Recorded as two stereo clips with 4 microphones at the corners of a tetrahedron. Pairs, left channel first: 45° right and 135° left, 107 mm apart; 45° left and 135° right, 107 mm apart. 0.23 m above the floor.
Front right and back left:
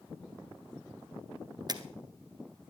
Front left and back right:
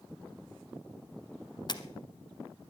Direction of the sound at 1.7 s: 90° left.